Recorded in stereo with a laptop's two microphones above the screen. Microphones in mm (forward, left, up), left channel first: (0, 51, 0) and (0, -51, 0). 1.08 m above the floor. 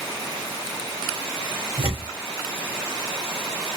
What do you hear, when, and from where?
1.8 s tearing paper: 65° left (ahead or behind), 1.6 m